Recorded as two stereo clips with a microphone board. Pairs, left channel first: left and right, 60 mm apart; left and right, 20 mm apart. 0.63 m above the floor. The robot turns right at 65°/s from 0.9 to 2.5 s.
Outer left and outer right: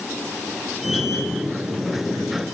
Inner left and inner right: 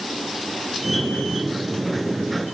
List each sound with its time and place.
Only background noise.